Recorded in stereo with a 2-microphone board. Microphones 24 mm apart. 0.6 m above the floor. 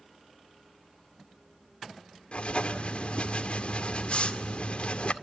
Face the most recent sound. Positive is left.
turn(degrees=55)  # may be behind; listen again after turning